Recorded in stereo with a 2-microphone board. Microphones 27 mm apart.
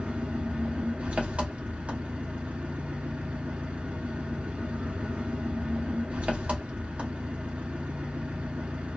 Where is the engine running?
50° right (ahead or behind), 1.0 m.